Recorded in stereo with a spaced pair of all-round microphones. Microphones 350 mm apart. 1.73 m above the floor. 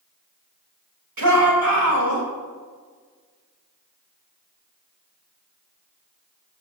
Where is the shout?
70° right (ahead or behind), 3.5 m.